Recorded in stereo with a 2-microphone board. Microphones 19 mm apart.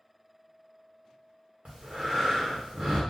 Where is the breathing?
70° right (ahead or behind), 1.4 m.